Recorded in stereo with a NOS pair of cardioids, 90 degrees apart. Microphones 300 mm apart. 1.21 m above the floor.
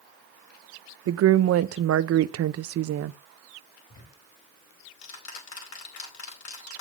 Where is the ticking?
65° left, 4.5 m.